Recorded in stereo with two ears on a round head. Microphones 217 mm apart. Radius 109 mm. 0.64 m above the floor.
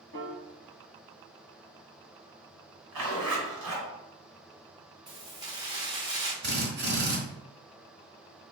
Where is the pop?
I don't hear a pop.